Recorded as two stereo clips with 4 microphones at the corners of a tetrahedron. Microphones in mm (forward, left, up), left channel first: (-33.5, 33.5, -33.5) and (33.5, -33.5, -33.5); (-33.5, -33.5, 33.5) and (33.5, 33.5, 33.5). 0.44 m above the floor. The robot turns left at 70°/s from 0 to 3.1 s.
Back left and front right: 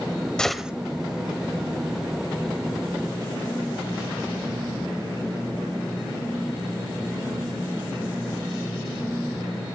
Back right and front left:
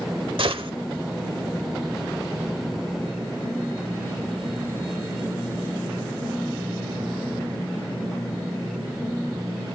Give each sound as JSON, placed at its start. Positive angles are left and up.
{"t": 0.4, "sound": "a gunshot", "azimuth_deg": 55, "distance_m": 1.1}